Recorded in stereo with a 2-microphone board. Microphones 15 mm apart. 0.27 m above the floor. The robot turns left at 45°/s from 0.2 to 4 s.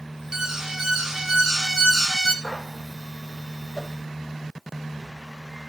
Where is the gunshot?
25° right (ahead or behind), 6 m; by 2.8 s 40° right (ahead or behind), 6 m.